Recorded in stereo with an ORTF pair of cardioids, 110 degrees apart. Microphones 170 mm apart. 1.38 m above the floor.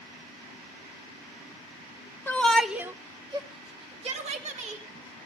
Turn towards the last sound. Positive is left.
turn(degrees=-50)